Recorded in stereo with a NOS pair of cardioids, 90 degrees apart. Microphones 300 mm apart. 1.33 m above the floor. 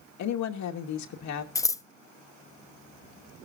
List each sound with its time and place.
0.2 s a woman speaking: 70° left, 2 m
1.6 s scissors: 10° left, 0.8 m